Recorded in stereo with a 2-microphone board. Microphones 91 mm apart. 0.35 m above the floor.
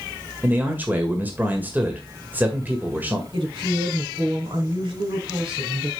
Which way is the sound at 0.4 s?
20° right (ahead or behind).